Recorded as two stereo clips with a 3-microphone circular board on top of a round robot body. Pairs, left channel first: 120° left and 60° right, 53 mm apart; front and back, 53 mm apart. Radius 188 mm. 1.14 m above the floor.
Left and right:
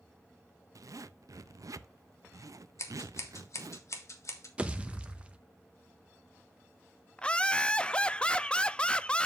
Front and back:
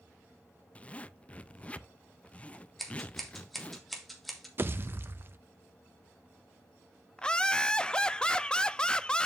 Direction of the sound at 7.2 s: 60° left.